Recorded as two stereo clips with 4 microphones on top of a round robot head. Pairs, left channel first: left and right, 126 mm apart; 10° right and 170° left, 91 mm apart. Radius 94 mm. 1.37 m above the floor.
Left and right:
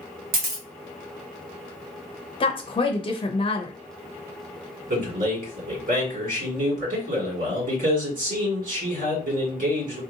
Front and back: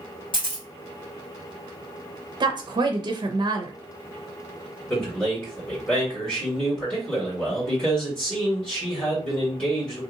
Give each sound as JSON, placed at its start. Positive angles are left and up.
{"t": 0.3, "sound": "a camera shutter", "azimuth_deg": -65, "distance_m": 0.7}
{"t": 2.4, "sound": "a woman speaking", "azimuth_deg": 135, "distance_m": 0.6}
{"t": 4.9, "sound": "a man speaking", "azimuth_deg": -85, "distance_m": 2.0}